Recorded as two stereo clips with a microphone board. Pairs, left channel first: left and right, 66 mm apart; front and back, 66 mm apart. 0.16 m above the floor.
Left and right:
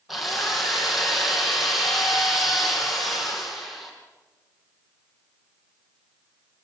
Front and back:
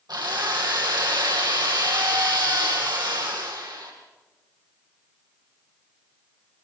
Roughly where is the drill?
Behind.